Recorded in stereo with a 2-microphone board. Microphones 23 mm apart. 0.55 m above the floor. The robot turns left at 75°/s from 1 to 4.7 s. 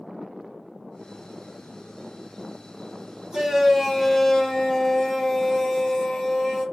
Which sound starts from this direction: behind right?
A shout, at 3.3 s.